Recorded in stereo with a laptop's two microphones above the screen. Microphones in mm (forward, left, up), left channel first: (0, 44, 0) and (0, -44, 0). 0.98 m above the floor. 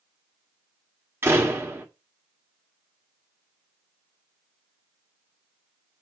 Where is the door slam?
25° right (ahead or behind), 1.7 m.